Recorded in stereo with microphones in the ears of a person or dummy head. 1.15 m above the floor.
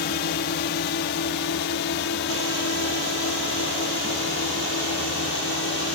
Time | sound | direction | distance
0.0 | a drone | 55° left (ahead or behind) | ?